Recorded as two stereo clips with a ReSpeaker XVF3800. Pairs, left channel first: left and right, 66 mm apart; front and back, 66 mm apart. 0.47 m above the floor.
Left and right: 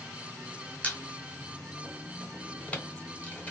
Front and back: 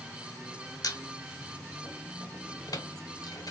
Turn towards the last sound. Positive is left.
turn(degrees=20)